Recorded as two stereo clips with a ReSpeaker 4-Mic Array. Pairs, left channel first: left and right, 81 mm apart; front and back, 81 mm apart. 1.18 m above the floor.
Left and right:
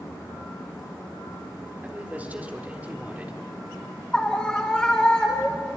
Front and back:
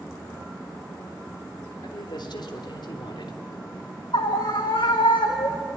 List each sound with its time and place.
1.8 s a man speaking: 20° right, 3.5 m
4.1 s a scream: 10° left, 1.6 m